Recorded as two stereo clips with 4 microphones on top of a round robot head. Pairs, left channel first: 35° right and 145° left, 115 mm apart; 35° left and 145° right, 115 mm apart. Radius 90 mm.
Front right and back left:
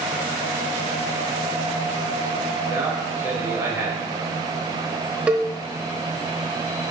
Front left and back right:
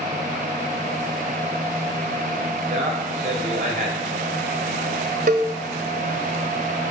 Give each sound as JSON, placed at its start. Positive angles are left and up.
{"t": 2.7, "sound": "a man speaking", "azimuth_deg": -140, "distance_m": 4.0}
{"t": 5.3, "sound": "a cowbell", "azimuth_deg": -130, "distance_m": 1.0}